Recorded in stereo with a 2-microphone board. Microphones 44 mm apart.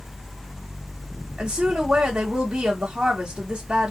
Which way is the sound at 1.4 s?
20° right (ahead or behind).